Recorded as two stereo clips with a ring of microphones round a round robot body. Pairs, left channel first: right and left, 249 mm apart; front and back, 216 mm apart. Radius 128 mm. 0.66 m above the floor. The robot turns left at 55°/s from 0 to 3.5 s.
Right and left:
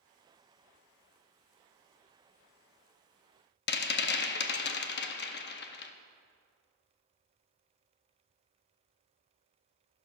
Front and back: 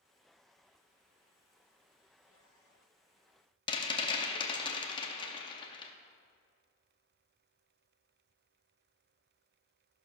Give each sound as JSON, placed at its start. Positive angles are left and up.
{"t": 3.7, "sound": "a rattle", "azimuth_deg": -65, "distance_m": 0.7}